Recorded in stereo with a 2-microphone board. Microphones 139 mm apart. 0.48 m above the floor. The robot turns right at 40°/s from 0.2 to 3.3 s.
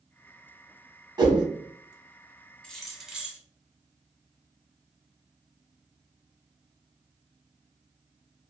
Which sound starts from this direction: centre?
Keys jangling, at 2.6 s.